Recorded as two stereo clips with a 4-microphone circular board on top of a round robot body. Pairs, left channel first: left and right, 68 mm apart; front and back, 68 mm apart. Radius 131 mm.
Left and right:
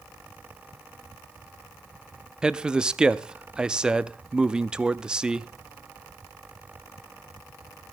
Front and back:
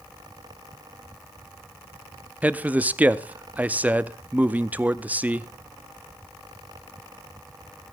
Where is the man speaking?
150° right, 0.7 m.